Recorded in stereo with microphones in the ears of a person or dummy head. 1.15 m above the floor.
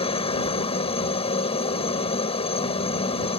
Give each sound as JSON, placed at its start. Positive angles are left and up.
{"t": 0.0, "sound": "a helicopter", "side_deg": 30}